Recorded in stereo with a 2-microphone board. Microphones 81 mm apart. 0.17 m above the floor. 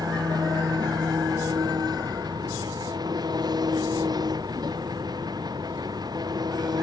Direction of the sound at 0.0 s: 65° right (ahead or behind).